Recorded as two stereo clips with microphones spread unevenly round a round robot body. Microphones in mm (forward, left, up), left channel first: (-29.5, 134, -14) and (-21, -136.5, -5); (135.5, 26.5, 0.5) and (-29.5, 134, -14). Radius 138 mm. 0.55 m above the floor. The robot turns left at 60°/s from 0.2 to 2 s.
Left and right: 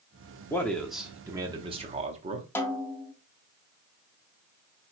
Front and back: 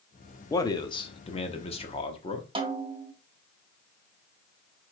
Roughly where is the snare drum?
Behind.